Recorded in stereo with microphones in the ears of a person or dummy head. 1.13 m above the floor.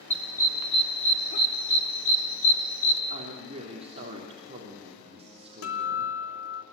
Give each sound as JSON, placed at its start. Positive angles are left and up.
{"t": 0.1, "sound": "a dog barking", "side_deg": 10, "distance_m": 1.1}
{"t": 3.1, "sound": "a woman speaking", "side_deg": -30, "distance_m": 3.5}
{"t": 5.6, "sound": "a guitar", "side_deg": 70, "distance_m": 2.5}